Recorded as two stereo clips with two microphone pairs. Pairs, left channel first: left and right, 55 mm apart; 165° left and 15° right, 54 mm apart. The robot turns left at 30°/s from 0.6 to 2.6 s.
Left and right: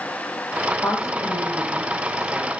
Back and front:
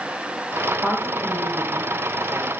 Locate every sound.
0.8 s a woman speaking: 45° left, 9 m; by 2.5 s 5° right, 9 m